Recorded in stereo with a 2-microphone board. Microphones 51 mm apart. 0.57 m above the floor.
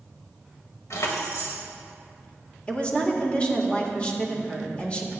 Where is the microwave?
I don't hear a microwave.